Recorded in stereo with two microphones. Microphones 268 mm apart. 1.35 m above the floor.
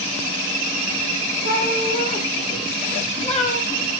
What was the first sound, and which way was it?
A cat meowing, 35° left (ahead or behind).